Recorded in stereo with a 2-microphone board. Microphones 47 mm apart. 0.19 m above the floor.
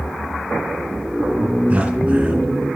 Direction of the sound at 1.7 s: 30° right (ahead or behind).